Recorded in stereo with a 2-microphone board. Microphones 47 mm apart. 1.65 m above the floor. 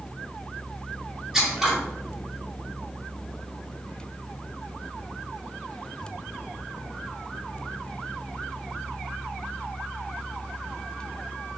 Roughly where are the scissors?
Centre.